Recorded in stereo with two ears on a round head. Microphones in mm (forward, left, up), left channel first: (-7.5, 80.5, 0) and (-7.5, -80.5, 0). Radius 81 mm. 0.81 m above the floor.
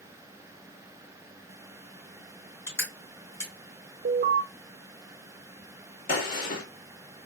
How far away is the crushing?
About 2.5 m.